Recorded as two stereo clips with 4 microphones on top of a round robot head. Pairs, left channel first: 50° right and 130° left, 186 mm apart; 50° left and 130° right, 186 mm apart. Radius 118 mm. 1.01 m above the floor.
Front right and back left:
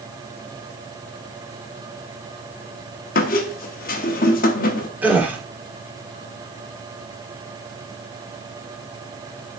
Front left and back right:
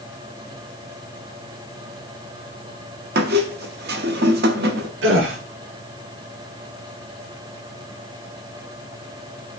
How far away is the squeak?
About 0.8 m.